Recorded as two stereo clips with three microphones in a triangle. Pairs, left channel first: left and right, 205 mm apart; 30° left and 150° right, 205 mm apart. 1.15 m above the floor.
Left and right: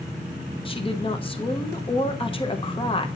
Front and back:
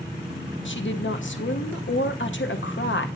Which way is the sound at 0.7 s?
30° left.